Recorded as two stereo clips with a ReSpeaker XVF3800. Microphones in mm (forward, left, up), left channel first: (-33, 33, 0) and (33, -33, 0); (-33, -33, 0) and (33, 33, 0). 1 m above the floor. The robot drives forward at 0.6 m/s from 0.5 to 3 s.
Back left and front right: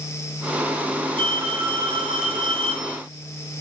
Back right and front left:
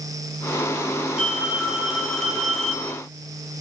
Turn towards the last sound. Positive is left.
turn(degrees=-50)